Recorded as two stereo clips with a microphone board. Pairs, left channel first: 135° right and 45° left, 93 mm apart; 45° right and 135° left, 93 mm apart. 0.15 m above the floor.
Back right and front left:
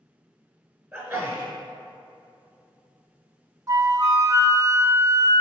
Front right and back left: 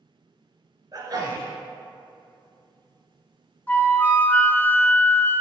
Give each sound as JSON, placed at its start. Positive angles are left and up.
{"t": 0.9, "sound": "a sneeze", "azimuth_deg": 130, "distance_m": 1.7}
{"t": 3.7, "sound": "a flute", "azimuth_deg": 15, "distance_m": 0.6}